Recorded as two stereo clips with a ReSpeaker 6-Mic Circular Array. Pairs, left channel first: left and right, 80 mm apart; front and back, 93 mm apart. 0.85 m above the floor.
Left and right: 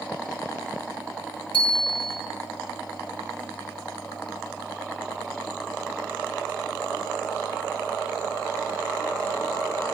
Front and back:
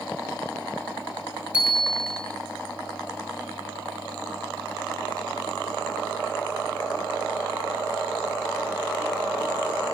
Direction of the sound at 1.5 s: 105° left.